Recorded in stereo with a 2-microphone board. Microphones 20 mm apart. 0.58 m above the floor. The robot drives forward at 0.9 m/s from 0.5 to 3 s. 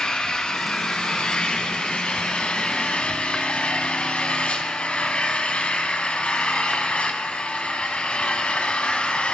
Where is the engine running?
50° left (ahead or behind), 5.5 m; by 9.3 s 70° left (ahead or behind), 4 m.